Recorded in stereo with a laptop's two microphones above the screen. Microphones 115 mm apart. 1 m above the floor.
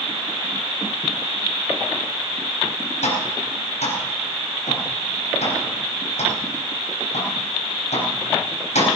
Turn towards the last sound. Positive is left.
turn(degrees=85)